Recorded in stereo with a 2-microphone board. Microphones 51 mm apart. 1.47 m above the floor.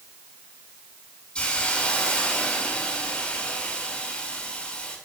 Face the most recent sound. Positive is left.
turn(degrees=25)  # may be behind; listen again after turning